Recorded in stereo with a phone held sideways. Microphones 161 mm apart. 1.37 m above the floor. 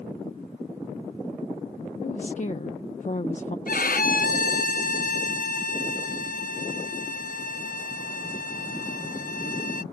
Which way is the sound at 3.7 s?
65° left (ahead or behind).